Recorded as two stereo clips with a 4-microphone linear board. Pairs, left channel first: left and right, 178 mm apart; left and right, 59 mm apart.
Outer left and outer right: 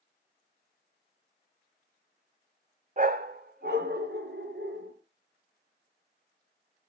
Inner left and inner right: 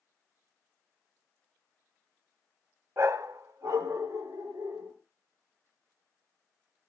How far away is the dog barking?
About 0.7 m.